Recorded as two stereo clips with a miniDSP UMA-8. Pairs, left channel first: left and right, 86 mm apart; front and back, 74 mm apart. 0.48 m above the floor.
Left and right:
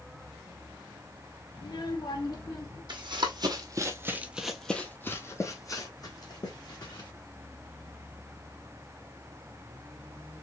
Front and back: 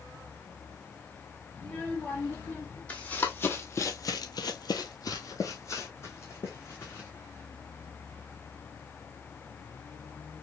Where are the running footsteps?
70° right, 1.5 m; by 7.1 s 60° left, 2.5 m.